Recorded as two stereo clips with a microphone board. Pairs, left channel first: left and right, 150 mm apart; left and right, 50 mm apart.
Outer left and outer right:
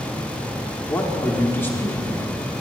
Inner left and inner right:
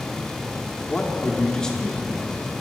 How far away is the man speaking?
About 0.8 m.